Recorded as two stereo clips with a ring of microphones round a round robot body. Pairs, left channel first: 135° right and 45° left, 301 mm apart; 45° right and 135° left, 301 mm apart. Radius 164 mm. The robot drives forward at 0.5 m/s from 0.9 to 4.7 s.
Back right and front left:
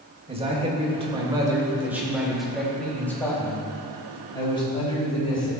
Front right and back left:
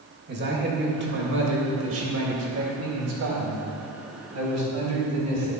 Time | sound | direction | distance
0.3 | a man speaking | 105° left | 1.7 m